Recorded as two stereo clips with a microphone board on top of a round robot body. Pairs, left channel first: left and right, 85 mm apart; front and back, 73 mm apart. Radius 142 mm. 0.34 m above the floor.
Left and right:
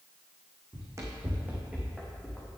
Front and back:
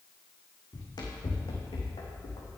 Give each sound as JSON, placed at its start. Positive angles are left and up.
{"t": 0.7, "sound": "running footsteps", "azimuth_deg": -40, "distance_m": 1.9}